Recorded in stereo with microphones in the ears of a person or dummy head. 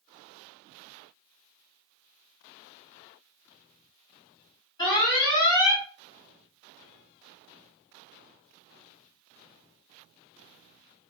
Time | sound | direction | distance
4.8 | an alarm | 25° left (ahead or behind) | 1.2 m